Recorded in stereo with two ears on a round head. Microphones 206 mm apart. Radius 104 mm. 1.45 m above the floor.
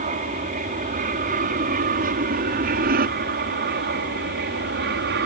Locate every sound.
0.0 s an aircraft: 35° right (ahead or behind); by 5.3 s 45° right (ahead or behind)